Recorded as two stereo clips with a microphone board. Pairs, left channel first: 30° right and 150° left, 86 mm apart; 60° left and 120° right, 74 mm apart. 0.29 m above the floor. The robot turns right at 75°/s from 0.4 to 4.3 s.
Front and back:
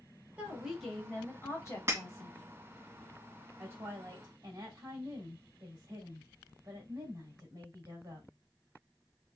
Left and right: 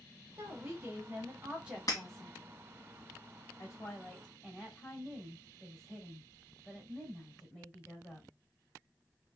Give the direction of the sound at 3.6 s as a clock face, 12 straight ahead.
9 o'clock.